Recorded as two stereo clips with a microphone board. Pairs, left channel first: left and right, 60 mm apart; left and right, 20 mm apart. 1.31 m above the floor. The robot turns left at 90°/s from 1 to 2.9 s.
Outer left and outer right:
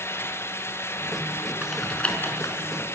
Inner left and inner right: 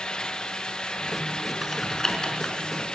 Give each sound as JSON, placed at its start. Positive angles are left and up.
{"t": 1.6, "sound": "typing on a keyboard", "side_deg": -15, "distance_m": 4.0}